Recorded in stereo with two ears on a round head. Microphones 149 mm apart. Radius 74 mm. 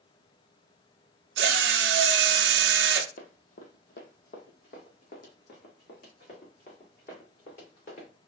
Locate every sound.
1.4 s a drill: 70° right (ahead or behind), 0.5 m
3.2 s running footsteps: 55° left (ahead or behind), 1.1 m; by 8.1 s 50° left (ahead or behind), 3 m